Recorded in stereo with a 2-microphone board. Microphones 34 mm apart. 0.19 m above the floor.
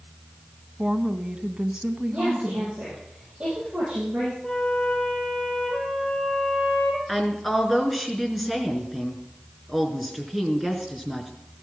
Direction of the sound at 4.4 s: 15° left (ahead or behind).